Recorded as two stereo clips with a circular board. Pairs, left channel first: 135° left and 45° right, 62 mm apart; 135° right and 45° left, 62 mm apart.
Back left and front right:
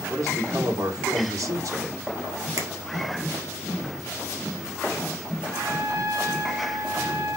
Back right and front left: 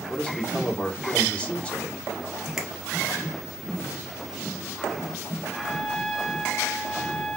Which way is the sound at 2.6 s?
35° right.